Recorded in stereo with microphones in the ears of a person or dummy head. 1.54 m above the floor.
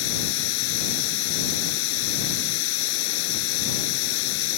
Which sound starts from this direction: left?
Running water, at 0.0 s.